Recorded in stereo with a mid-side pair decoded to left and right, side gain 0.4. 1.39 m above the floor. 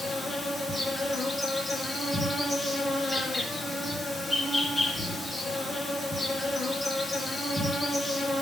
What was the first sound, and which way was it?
An insect, 25° left.